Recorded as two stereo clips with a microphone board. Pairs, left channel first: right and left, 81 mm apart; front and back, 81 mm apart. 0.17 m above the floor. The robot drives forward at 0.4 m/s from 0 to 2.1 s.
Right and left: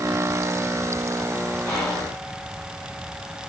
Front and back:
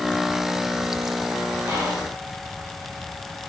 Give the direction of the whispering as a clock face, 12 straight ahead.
5 o'clock.